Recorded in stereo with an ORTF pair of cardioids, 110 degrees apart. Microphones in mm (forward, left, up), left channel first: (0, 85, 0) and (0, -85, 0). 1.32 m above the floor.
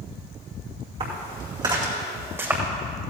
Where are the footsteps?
40° right, 4.5 m; by 2.6 s 10° right, 4 m.